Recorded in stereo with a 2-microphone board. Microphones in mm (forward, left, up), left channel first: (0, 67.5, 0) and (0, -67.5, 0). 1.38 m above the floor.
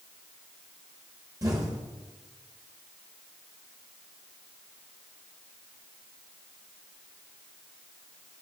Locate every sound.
1.4 s an explosion: 25° right (ahead or behind), 0.9 m